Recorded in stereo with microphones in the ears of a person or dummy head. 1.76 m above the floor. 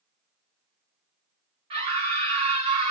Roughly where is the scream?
Right.